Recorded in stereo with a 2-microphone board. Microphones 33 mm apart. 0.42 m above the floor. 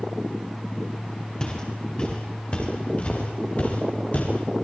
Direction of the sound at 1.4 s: 25° left (ahead or behind).